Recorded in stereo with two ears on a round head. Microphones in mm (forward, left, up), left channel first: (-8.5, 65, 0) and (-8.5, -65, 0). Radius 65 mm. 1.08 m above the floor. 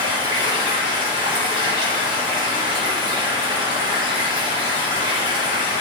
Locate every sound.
0.0 s running water: 30° right (ahead or behind), 2.5 m